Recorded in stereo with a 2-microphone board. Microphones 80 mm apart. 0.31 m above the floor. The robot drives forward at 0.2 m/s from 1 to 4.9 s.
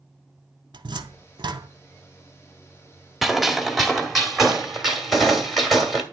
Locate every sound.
0.7 s a cupboard door: 70° right (ahead or behind), 0.9 m; by 1.7 s 65° right (ahead or behind), 0.9 m
3.2 s a gunshot: centre (ahead or behind), 1.6 m